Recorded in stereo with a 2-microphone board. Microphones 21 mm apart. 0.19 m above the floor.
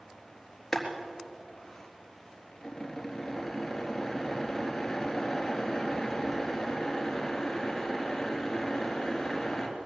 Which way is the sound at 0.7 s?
15° left (ahead or behind).